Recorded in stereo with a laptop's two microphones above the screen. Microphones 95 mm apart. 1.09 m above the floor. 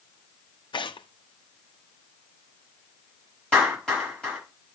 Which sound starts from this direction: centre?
A clap, at 3.5 s.